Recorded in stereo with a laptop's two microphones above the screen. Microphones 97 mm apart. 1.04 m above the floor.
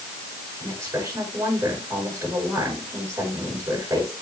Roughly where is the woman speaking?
Right.